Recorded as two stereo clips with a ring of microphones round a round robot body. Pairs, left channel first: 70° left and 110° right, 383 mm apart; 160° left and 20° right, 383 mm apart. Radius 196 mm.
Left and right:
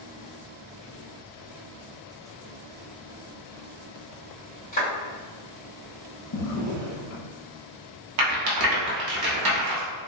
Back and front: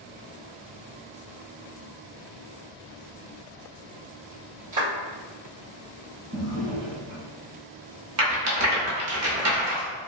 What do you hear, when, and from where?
4.7 s a clap: straight ahead, 1.7 m
6.3 s a drawer: 35° left, 1.1 m
8.2 s a rattle: 75° right, 0.8 m